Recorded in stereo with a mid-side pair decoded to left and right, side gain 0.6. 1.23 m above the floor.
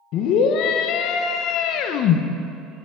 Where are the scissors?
No scissors in this recording.